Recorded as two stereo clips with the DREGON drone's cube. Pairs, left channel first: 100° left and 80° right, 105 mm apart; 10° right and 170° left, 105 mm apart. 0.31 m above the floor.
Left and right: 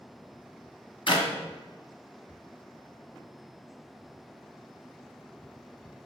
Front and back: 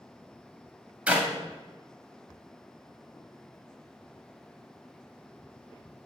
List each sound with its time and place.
1.1 s a clap: 95° left, 1.7 m